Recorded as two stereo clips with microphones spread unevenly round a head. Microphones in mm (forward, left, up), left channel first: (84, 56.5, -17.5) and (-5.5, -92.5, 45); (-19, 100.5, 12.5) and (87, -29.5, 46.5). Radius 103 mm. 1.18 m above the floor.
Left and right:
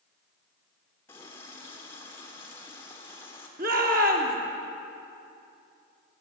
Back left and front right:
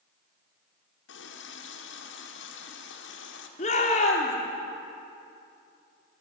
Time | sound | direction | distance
1.1 | a running tap | 140° left | 2.5 m
3.6 | a shout | 175° right | 3.5 m